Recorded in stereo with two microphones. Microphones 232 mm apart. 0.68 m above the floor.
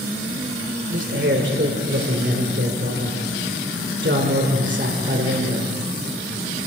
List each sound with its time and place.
0.9 s a man speaking: 55° right (ahead or behind), 2.5 m